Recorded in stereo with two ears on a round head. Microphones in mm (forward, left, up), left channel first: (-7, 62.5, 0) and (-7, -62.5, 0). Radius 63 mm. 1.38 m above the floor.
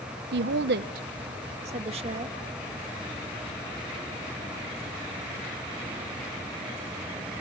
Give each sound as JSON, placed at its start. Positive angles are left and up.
{"t": 0.3, "sound": "a woman speaking", "side_deg": -80, "distance_m": 0.8}